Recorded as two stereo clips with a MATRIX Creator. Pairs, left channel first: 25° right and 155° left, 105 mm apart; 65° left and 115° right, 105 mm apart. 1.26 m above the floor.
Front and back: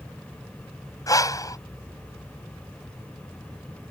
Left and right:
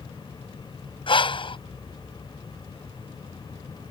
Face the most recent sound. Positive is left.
turn(degrees=35)